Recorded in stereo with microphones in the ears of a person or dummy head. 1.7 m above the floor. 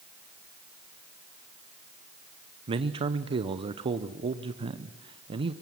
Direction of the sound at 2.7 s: 35° right (ahead or behind).